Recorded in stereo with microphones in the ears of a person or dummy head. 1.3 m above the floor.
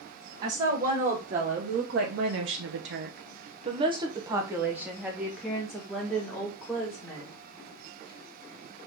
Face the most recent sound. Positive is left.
turn(degrees=5)  # may be behind; listen again after turning